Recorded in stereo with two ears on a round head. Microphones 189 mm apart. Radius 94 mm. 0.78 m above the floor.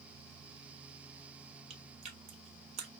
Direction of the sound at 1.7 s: 30° right (ahead or behind).